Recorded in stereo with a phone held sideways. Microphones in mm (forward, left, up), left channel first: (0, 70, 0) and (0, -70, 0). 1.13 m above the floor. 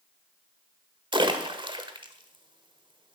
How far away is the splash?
About 1.4 m.